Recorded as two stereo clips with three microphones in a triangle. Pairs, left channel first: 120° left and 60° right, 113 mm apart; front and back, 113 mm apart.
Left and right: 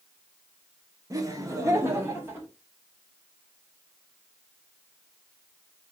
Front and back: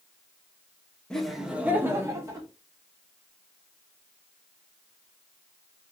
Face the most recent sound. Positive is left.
turn(degrees=-125)